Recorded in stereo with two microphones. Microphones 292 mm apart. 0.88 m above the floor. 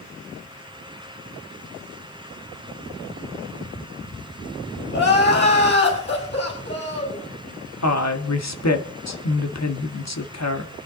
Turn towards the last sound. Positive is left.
turn(degrees=65)  # may be behind; listen again after turning